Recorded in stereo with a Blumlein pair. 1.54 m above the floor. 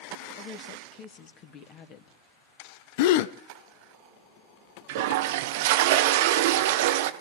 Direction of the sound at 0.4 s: 35° left.